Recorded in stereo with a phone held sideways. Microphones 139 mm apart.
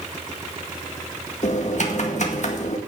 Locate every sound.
1.4 s typing on a keyboard: 60° left (ahead or behind), 1.9 m